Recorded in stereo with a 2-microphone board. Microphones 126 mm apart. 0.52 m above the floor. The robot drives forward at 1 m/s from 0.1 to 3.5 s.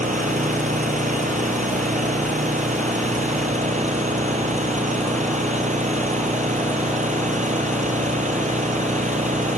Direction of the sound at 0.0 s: 85° right.